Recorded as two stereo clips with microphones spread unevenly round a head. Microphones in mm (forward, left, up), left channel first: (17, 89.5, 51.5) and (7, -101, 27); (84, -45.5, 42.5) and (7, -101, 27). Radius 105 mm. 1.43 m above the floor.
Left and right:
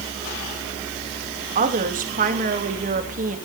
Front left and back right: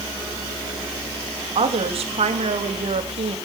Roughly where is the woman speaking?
Behind right.